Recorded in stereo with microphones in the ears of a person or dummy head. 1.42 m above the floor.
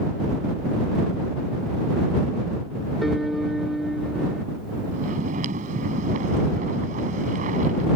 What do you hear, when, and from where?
3.0 s a piano: centre (ahead or behind)
4.9 s snoring: 45° right (ahead or behind)